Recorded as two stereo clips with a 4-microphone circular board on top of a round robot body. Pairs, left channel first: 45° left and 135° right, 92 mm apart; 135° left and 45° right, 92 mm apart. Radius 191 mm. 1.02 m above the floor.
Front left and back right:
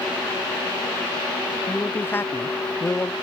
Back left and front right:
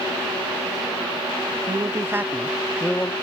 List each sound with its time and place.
1.7 s a man speaking: 20° right; by 3.1 s 90° left